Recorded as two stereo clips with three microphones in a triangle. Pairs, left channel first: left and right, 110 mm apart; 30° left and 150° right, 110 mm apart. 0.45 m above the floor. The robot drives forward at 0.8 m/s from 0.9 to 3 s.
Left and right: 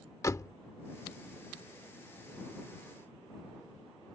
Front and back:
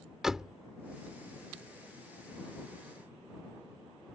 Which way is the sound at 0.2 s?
130° left.